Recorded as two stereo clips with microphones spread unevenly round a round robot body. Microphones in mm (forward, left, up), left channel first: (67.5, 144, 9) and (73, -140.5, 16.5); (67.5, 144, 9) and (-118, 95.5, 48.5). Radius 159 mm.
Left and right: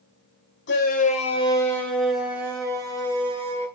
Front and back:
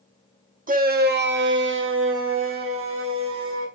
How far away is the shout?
About 3 m.